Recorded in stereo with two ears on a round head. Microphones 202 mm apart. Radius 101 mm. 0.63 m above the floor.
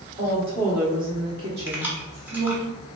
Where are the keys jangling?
10° right (ahead or behind), 1.0 m.